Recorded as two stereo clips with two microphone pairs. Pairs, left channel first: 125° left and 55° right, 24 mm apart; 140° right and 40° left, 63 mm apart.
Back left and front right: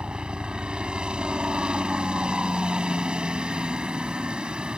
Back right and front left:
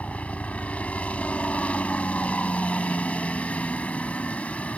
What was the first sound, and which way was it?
A helicopter, 80° right.